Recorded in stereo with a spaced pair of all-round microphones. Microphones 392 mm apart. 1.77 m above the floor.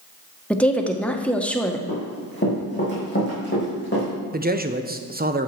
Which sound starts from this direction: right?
A man speaking, at 4.3 s.